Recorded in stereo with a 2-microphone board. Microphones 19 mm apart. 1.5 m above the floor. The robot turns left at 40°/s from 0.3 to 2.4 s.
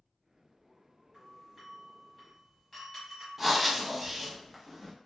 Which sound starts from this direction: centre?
Breathing, at 3.4 s.